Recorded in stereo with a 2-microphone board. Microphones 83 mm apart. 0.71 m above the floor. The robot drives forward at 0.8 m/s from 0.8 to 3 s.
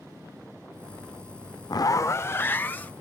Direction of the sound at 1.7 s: 55° left (ahead or behind).